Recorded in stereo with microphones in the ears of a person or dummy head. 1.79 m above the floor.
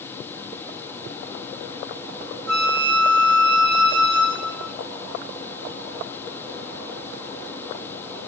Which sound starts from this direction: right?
A flute, at 2.5 s.